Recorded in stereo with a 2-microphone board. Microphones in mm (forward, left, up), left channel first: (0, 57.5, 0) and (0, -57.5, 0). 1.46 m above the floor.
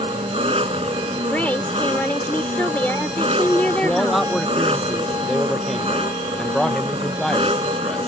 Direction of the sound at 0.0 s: 60° right (ahead or behind).